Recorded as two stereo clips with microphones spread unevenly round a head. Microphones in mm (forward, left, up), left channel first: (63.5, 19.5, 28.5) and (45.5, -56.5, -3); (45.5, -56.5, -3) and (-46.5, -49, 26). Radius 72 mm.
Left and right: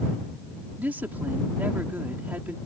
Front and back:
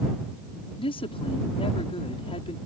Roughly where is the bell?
I don't hear a bell.